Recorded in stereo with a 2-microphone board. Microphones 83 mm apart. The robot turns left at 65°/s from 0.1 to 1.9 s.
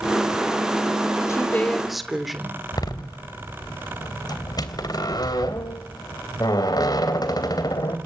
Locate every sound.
1.3 s a woman speaking: 40° left, 3 m; by 2.6 s straight ahead, 3 m
2.7 s a door slam: 50° left (ahead or behind), 3 m